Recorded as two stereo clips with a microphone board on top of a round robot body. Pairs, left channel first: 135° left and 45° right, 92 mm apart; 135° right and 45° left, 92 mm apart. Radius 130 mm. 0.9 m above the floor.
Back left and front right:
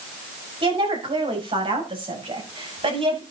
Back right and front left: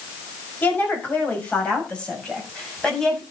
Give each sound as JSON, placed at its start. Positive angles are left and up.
{"t": 0.6, "sound": "a woman speaking", "azimuth_deg": -65, "distance_m": 5.5}